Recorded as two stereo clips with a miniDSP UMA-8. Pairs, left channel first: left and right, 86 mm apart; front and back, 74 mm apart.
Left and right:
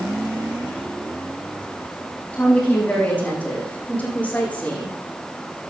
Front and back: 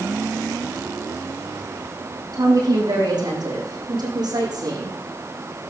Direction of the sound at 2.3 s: 160° left.